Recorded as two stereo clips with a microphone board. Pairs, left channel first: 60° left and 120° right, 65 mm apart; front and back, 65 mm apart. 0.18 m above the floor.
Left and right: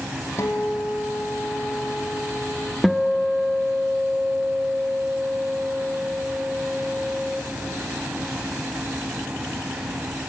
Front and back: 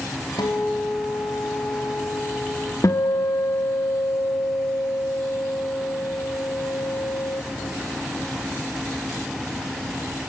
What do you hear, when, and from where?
0.4 s a guitar: 15° left, 3.5 m
2.8 s a guitar: 30° right, 1.3 m